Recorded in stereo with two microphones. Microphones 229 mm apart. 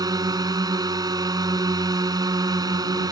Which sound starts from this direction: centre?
A drone, at 0.0 s.